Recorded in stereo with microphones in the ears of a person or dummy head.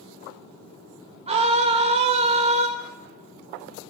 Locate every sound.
1.3 s a scream: 35° right (ahead or behind), 2 m